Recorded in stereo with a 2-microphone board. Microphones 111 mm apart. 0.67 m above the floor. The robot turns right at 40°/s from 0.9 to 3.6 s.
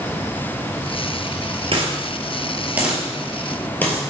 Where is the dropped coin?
55° right (ahead or behind), 1.8 m; by 4.0 s 15° left (ahead or behind), 1.8 m.